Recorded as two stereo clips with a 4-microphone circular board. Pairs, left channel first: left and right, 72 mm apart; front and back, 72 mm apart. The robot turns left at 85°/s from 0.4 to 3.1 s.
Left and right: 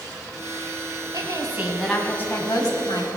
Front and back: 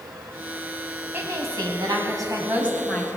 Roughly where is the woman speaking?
Behind right.